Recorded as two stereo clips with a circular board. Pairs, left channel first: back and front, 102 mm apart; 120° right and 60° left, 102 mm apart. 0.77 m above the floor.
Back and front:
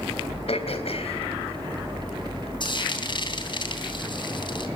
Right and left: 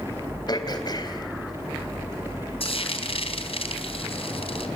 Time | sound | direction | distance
0.5 | throat clearing | 165° right | 3.5 m
2.6 | frying | 140° right | 3.5 m